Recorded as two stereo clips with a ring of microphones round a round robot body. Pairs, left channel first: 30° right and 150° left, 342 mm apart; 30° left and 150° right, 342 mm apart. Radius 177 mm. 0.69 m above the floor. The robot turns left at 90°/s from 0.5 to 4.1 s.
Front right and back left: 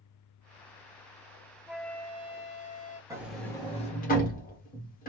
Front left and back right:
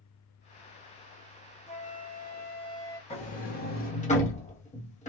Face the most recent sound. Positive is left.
turn(degrees=-10)